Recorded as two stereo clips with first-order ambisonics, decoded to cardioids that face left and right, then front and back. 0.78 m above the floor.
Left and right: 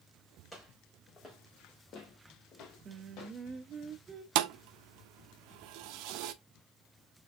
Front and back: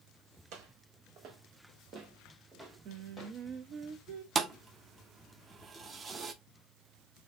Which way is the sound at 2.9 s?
150° right.